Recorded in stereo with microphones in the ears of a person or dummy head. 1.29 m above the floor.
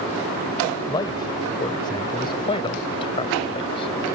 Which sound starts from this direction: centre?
A man speaking, at 0.9 s.